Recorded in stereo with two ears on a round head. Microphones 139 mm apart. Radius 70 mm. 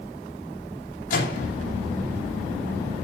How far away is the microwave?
About 9 m.